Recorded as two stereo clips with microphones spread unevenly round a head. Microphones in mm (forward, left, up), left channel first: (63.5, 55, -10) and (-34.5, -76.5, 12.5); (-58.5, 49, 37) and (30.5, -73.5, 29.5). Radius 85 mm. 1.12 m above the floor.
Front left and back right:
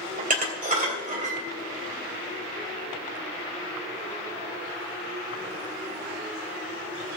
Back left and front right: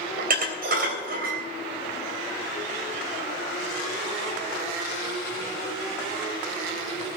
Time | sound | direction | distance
0.2 | dishes clattering | 85° right | 3 m